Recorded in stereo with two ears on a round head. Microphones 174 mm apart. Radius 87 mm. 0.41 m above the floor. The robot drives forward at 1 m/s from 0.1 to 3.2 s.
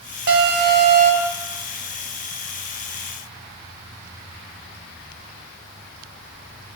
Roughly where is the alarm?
Right.